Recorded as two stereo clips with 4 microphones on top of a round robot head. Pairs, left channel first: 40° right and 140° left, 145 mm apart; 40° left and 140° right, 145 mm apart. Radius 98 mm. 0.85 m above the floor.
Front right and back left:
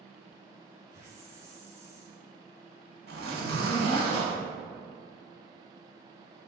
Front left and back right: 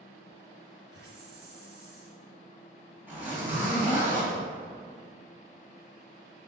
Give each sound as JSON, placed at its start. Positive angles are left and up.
{"t": 0.9, "sound": "a hiss", "azimuth_deg": -150, "distance_m": 1.8}
{"t": 3.1, "sound": "a zipper", "azimuth_deg": 145, "distance_m": 3.0}